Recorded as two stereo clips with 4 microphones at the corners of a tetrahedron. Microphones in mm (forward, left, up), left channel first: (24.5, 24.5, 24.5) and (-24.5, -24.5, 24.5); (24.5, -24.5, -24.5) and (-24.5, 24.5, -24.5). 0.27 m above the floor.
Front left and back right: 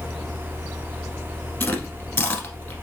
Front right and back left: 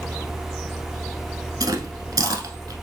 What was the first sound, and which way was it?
Chewing, 105° left.